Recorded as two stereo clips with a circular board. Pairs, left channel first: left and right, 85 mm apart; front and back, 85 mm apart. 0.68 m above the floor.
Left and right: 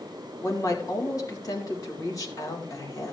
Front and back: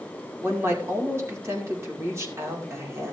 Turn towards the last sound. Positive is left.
turn(degrees=130)